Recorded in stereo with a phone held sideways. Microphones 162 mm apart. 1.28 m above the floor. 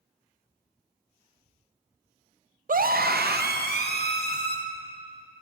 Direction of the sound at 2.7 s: 55° right (ahead or behind).